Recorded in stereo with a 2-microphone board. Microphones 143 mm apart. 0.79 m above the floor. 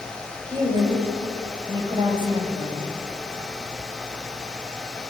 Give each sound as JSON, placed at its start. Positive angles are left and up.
{"t": 0.5, "sound": "a woman speaking", "side_deg": -30, "distance_m": 5.0}